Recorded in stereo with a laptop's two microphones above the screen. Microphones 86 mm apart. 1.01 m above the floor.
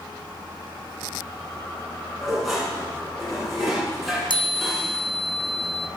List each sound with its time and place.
2.2 s dishes clattering: centre (ahead or behind), 8.5 m
4.3 s a chime: 60° left (ahead or behind), 0.8 m